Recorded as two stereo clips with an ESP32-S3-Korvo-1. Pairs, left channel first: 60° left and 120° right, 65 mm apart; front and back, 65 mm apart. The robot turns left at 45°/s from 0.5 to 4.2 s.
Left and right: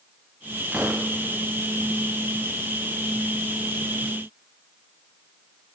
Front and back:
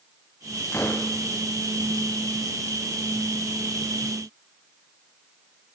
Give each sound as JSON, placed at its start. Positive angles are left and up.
{"t": 0.7, "sound": "a gunshot", "azimuth_deg": -55, "distance_m": 4.0}